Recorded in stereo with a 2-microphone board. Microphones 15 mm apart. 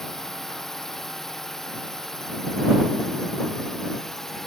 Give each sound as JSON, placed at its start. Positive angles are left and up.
{"t": 0.0, "sound": "a drone", "side_deg": 25}